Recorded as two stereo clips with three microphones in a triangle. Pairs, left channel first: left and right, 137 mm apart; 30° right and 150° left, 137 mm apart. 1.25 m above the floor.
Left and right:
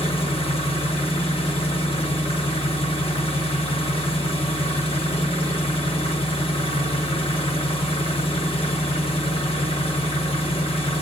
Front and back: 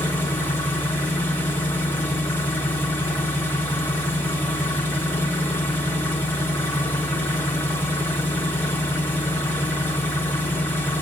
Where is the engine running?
45° left, 1.3 m.